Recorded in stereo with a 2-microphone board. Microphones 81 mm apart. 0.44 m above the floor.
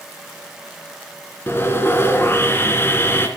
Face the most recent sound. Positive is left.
turn(degrees=30)  # may be behind; listen again after turning